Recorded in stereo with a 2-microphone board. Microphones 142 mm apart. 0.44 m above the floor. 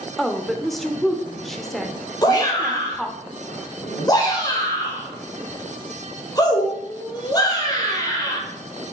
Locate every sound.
0.2 s a woman speaking: centre (ahead or behind), 0.9 m
2.2 s a shout: 25° left (ahead or behind), 2.0 m